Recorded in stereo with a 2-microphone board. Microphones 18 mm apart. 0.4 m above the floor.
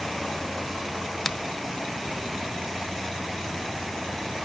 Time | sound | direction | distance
1.2 | a finger snap | 15° left (ahead or behind) | 0.6 m